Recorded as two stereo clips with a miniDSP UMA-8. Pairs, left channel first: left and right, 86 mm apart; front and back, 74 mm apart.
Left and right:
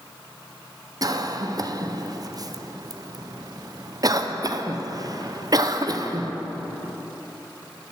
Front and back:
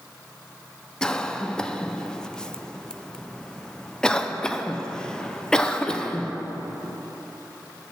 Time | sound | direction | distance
1.0 | a cough | 80° right | 0.5 m